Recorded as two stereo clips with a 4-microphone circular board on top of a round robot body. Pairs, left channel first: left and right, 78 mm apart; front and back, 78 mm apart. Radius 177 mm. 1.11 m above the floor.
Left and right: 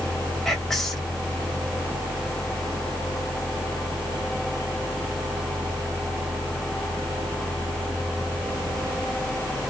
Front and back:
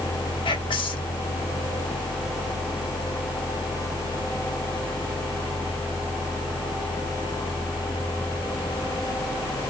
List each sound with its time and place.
0.5 s whispering: 5° left, 1.4 m